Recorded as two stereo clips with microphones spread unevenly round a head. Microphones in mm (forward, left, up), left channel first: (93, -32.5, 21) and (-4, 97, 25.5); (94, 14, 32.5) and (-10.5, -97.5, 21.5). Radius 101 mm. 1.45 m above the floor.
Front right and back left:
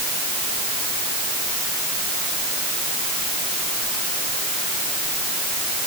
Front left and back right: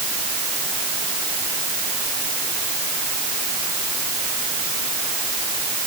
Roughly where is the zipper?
No zipper in this recording.